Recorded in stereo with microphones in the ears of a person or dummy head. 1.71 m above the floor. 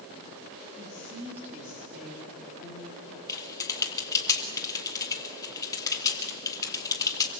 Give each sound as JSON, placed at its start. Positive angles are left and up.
{"t": 0.8, "sound": "a woman speaking", "side_deg": -20, "distance_m": 5.0}
{"t": 3.3, "sound": "typing on a keyboard", "side_deg": 15, "distance_m": 2.0}